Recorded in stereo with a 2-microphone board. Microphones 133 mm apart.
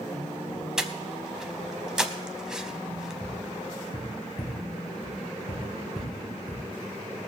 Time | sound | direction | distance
0.8 | breathing | 5° right (ahead or behind) | 0.8 m
3.2 | tapping | 85° left | 4 m